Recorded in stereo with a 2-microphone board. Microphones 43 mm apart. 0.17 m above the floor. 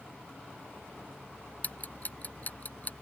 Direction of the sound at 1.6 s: 40° left (ahead or behind).